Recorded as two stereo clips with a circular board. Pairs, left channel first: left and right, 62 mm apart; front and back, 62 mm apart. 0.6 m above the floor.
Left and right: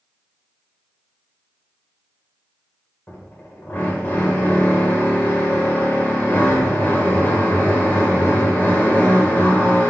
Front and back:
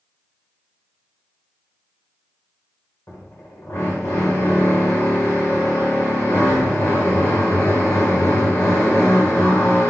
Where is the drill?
35° left, 1.9 m.